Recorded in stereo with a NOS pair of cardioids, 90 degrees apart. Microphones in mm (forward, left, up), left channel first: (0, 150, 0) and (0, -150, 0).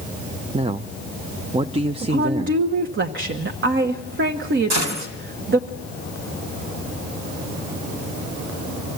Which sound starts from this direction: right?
A gunshot, at 4.7 s.